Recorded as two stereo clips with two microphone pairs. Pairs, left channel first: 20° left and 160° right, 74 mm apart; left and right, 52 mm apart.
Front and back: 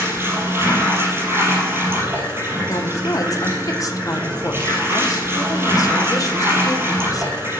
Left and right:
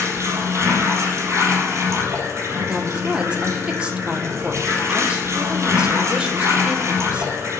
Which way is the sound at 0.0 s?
105° right.